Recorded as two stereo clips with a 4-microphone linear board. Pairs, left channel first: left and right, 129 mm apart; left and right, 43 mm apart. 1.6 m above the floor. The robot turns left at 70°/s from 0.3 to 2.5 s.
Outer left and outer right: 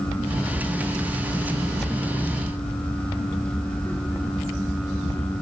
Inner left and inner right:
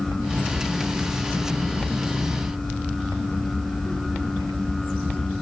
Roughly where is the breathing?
I don't hear breathing.